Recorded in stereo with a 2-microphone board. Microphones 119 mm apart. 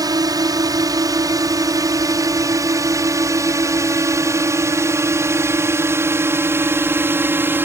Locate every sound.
0.0 s a drone: 30° right (ahead or behind); by 7.6 s 20° right (ahead or behind)